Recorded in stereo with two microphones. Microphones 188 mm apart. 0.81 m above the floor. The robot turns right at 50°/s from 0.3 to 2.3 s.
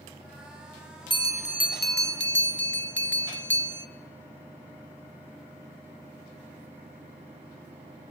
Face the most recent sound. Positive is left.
turn(degrees=85)